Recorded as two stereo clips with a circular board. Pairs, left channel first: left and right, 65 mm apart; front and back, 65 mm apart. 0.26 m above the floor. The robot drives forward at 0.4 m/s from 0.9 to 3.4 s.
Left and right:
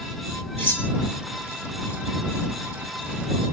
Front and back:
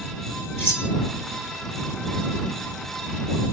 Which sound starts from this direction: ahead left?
Cutlery clinking, at 0.6 s.